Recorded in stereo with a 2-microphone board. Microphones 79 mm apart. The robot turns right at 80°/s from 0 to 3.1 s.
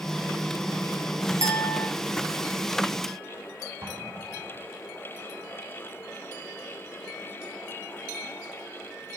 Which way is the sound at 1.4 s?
140° right.